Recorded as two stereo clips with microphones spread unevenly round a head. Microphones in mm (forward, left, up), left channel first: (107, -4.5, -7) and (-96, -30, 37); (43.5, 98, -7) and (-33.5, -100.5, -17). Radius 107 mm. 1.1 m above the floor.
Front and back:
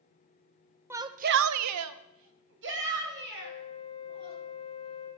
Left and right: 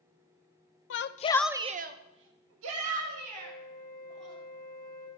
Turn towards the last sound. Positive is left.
turn(degrees=-145)